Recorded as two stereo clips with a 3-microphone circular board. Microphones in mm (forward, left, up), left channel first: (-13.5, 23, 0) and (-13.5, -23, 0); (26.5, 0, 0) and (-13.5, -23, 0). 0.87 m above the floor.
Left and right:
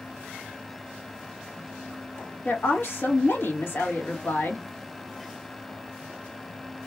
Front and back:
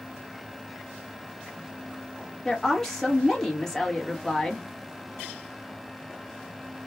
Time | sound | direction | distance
2.5 | a woman speaking | 110° left | 1.4 m